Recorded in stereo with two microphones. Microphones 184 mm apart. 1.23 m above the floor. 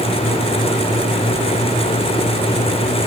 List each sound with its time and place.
Only background noise.